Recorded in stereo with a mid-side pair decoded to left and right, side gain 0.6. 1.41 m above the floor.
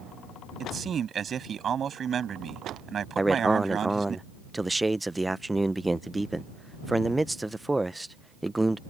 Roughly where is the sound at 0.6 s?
Ahead right.